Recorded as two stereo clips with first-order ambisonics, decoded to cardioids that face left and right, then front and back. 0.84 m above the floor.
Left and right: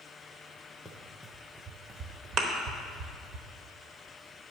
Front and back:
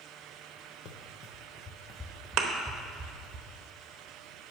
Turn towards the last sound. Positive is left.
turn(degrees=-140)